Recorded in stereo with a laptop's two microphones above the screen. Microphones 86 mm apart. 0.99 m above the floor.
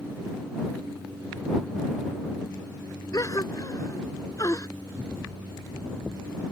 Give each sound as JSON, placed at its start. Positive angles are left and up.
{"t": 3.1, "sound": "a gasp", "side_deg": 40}